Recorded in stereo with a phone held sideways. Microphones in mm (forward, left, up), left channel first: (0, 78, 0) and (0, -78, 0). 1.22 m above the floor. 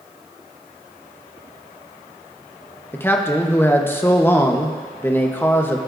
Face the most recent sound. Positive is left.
turn(degrees=15)  # may be behind; listen again after turning